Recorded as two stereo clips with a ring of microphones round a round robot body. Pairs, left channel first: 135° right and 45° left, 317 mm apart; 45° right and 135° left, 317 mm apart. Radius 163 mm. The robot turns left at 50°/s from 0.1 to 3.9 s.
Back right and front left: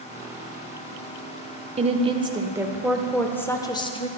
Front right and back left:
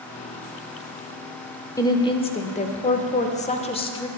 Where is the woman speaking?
15° left, 0.8 m; by 4.1 s 90° right, 0.8 m.